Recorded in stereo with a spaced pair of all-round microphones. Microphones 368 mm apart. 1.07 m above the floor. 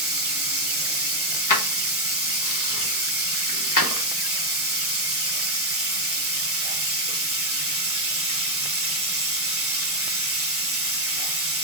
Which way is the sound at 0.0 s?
40° right (ahead or behind).